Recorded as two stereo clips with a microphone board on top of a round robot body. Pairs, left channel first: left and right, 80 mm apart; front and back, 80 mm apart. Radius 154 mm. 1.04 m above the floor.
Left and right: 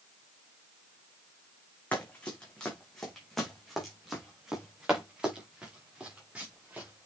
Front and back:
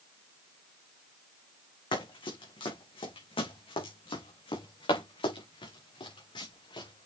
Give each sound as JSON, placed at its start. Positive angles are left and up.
{"t": 1.9, "sound": "running footsteps", "azimuth_deg": 15, "distance_m": 3.5}